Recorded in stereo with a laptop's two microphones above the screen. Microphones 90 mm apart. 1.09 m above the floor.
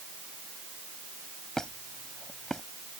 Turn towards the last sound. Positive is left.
turn(degrees=5)  # may be behind; listen again after turning